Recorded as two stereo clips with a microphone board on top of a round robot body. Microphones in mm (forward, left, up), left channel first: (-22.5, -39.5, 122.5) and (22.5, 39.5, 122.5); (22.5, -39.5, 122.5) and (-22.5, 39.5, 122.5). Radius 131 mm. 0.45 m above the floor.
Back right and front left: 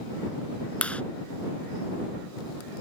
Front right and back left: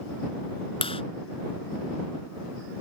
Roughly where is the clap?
Ahead right.